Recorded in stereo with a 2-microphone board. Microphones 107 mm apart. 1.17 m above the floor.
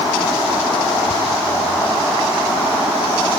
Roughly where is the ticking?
Left.